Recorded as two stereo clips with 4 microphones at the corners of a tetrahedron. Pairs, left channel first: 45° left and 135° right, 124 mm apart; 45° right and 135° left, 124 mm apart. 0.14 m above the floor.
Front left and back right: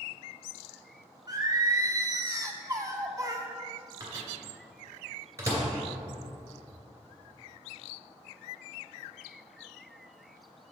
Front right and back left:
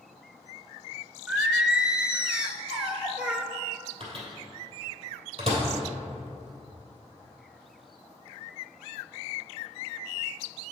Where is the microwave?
160° left, 2.5 m.